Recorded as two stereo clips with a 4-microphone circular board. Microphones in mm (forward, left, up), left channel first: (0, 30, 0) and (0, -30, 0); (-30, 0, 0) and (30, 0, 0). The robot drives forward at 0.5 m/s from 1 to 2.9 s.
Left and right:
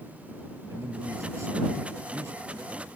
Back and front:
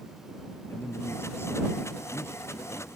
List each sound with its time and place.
0.7 s a man speaking: 130° right